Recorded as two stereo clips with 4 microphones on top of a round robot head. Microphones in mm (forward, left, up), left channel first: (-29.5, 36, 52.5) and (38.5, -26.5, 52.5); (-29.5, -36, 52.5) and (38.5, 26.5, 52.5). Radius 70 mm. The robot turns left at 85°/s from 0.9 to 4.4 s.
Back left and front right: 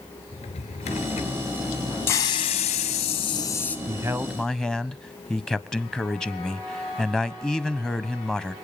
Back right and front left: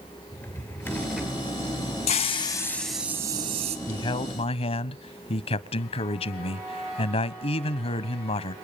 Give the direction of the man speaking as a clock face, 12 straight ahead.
3 o'clock.